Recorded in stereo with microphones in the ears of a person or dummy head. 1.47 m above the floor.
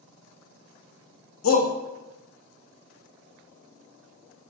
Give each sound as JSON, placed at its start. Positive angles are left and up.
{"t": 1.4, "sound": "a shout", "side_deg": 80, "distance_m": 1.2}